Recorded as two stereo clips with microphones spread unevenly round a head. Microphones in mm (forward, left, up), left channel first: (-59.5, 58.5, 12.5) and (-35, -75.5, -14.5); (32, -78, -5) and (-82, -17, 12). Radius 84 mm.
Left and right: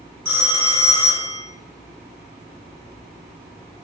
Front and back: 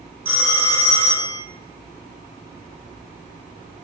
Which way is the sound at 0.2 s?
155° right.